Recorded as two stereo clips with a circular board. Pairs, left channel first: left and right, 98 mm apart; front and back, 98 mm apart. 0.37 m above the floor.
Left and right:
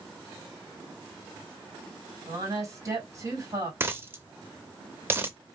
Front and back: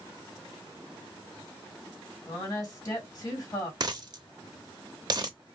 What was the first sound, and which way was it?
A woman speaking, 45° right.